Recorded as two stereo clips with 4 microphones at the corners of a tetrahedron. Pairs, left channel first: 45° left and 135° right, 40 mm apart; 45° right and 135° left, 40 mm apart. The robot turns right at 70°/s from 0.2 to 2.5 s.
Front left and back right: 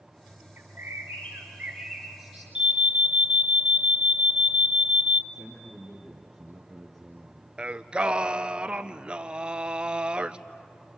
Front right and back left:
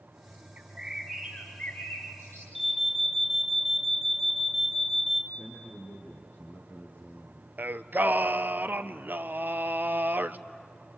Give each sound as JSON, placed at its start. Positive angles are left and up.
{"t": 0.6, "sound": "a bird", "azimuth_deg": -170, "distance_m": 6.0}
{"t": 2.5, "sound": "an alarm", "azimuth_deg": -155, "distance_m": 1.1}
{"t": 5.3, "sound": "a man speaking", "azimuth_deg": -35, "distance_m": 4.5}
{"t": 7.6, "sound": "singing", "azimuth_deg": 160, "distance_m": 0.7}